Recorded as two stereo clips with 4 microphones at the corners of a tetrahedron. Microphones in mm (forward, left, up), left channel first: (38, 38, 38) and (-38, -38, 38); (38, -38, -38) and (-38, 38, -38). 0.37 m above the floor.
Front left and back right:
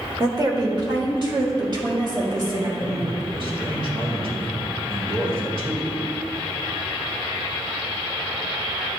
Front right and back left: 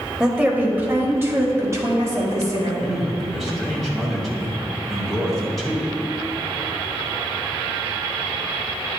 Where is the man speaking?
135° right, 2.0 m.